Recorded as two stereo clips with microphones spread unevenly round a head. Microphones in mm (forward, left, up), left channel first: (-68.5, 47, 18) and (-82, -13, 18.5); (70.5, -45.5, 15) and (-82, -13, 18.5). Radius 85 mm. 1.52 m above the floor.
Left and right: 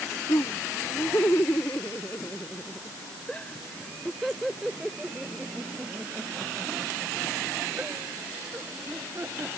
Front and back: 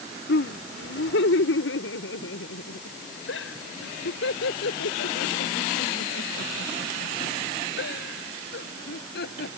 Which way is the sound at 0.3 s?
15° left.